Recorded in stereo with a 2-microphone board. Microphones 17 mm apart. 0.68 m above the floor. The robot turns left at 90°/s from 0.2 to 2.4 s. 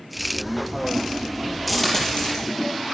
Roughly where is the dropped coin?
Centre.